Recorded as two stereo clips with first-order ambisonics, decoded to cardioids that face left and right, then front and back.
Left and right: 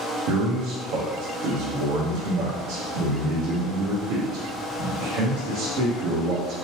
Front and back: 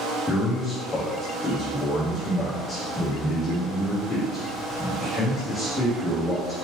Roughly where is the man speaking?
Right.